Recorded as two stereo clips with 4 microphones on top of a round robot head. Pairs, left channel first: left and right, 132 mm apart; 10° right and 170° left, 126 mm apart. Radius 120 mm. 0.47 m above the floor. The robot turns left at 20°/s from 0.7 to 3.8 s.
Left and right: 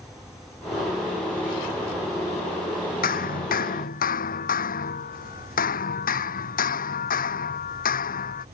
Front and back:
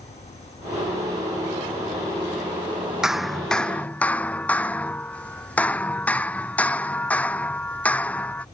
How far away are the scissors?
I don't hear scissors.